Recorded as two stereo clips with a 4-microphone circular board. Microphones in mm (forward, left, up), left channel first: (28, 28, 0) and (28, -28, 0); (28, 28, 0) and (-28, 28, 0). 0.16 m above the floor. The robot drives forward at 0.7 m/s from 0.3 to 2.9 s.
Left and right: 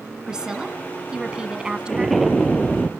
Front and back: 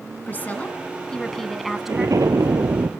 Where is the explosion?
Straight behind, 1.7 m.